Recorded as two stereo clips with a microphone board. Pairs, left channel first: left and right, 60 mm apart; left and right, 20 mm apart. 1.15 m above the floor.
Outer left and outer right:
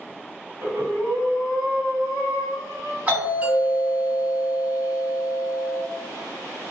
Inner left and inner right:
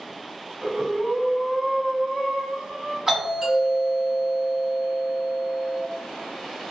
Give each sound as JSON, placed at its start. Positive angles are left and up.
{"t": 0.6, "sound": "breathing", "side_deg": -65, "distance_m": 1.8}
{"t": 3.1, "sound": "a doorbell", "side_deg": -30, "distance_m": 1.9}